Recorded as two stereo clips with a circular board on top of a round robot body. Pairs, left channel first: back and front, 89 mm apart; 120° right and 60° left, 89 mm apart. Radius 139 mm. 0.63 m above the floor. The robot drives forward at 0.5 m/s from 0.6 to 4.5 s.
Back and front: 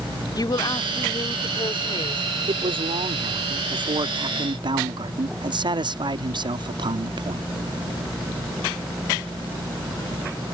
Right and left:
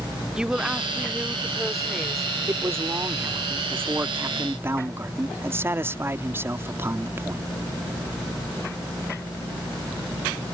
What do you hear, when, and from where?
0.3 s a woman speaking: 140° left; by 2.2 s 150° left
2.5 s a man speaking: straight ahead